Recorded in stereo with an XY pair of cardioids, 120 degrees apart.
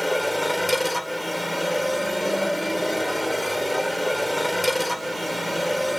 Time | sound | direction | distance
0.0 | a machine running | 5° left | ?